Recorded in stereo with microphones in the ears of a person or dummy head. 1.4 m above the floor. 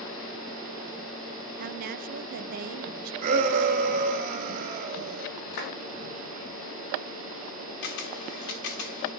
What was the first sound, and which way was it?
A woman speaking, 50° right (ahead or behind).